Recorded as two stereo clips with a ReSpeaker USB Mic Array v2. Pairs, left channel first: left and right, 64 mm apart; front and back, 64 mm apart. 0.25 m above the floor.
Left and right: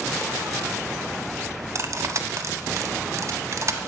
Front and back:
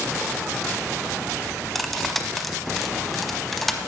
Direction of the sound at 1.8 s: 90° right.